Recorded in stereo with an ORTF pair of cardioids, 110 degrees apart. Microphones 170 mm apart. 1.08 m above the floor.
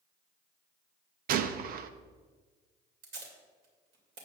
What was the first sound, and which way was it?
A gunshot, 60° right.